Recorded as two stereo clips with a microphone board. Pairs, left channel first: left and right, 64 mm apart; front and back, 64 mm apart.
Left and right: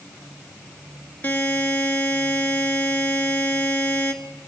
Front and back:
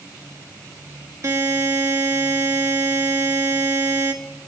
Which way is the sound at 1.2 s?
145° left.